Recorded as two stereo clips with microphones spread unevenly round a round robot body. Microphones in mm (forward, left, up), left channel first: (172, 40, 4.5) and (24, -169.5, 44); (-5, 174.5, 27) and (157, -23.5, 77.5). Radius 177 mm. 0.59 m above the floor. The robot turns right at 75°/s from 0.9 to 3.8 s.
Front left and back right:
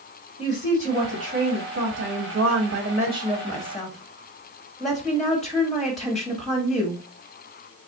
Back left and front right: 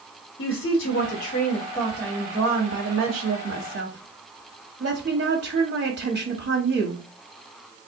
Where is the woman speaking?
115° left, 1.4 m; by 7.0 s 25° right, 1.4 m.